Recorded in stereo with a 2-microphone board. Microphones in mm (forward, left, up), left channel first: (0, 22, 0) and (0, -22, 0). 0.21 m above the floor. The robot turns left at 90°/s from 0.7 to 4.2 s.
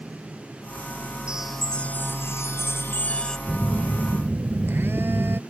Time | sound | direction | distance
1.3 | a chime | 160° right | ?
3.5 | a phone buzzing | 5° left | ?